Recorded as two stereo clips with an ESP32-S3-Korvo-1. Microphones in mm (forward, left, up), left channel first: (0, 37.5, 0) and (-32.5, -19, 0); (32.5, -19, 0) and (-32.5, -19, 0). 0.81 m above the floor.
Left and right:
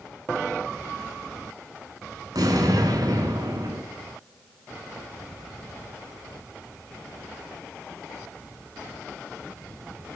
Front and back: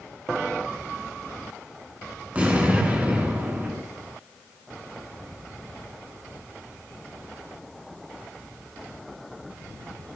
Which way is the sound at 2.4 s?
110° right.